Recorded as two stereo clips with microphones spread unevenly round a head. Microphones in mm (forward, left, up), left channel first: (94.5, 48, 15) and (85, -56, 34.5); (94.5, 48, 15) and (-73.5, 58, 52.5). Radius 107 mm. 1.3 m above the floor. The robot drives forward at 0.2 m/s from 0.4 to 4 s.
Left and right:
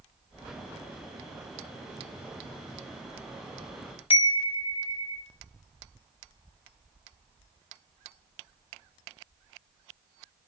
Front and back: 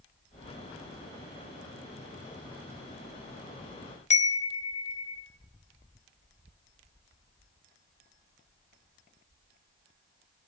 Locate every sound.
4.1 s a chime: 50° left, 1.6 m